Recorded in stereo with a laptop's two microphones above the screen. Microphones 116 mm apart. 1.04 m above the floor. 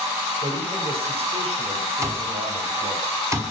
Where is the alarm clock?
25° right (ahead or behind), 5.5 m.